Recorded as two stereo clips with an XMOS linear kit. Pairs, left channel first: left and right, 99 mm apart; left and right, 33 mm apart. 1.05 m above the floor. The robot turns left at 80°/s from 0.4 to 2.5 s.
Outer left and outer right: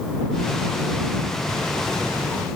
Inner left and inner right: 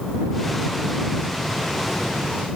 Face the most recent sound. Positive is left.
No sound to turn to.